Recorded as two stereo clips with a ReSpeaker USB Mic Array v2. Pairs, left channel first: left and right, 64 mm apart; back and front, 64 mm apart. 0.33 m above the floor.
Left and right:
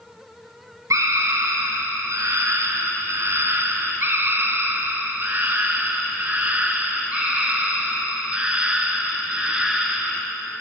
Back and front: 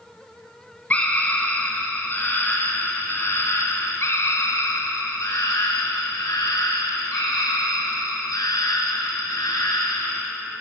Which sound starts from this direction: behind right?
A scream, at 0.9 s.